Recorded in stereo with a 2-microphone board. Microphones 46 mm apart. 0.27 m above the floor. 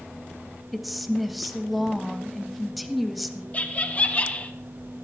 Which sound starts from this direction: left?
Laughter, at 3.5 s.